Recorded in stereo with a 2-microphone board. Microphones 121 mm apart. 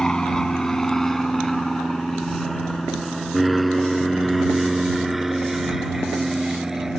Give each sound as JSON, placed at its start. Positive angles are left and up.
{"t": 0.0, "sound": "an aircraft", "side_deg": 5}